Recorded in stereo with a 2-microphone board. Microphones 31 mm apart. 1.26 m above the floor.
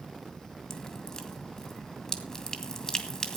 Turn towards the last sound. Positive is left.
turn(degrees=25)  # may be behind; listen again after turning